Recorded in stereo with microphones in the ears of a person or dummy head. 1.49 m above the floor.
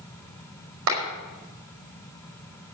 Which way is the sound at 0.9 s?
60° right (ahead or behind).